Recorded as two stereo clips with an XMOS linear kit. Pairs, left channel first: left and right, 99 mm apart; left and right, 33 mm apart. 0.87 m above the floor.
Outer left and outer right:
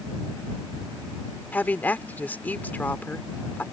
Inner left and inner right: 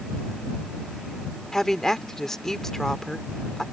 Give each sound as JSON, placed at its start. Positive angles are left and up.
{"t": 1.5, "sound": "a woman speaking", "side_deg": 15}